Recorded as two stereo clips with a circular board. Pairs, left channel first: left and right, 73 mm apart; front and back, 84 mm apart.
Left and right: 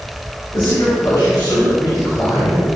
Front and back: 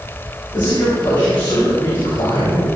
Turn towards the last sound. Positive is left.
turn(degrees=15)